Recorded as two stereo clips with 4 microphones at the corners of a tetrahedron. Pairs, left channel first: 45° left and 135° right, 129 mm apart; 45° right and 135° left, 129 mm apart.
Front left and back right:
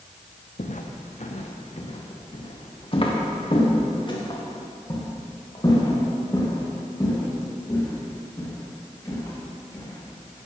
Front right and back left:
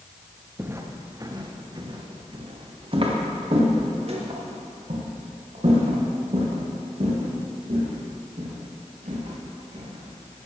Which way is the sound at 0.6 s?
65° left.